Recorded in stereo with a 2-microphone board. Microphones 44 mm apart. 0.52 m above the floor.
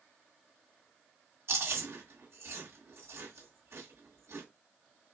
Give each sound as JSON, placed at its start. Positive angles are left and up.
{"t": 1.5, "sound": "chewing", "side_deg": -75, "distance_m": 2.0}